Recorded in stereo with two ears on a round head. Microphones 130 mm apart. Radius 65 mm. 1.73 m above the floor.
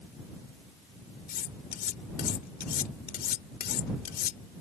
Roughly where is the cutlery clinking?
Left.